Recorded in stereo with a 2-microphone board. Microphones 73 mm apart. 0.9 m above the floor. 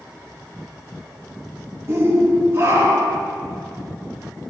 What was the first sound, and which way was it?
A shout, 35° right (ahead or behind).